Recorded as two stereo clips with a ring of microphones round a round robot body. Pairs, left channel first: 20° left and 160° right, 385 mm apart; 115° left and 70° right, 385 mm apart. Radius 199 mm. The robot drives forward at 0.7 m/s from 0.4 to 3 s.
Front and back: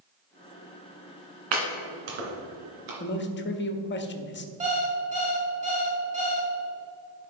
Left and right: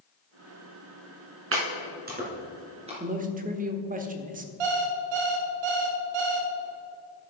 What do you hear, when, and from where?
1.5 s chopping: 125° right, 2 m; by 2.9 s 145° right, 3 m
3.0 s a man speaking: 15° right, 0.9 m
4.6 s an alarm clock: 85° right, 2 m